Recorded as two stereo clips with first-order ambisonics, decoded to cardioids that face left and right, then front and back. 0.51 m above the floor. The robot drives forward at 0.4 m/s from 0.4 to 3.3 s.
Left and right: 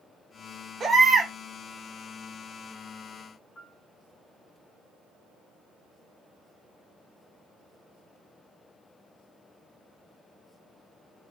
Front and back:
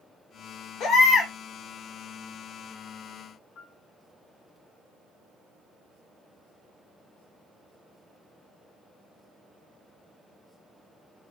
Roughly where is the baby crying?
Ahead.